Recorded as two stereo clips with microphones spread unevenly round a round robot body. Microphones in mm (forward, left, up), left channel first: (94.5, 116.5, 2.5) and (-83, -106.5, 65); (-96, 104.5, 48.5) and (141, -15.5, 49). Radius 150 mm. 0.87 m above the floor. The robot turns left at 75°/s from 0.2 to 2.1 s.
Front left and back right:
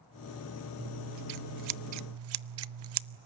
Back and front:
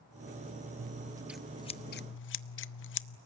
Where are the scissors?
75° right, 0.5 m; by 3.2 s 170° right, 0.5 m.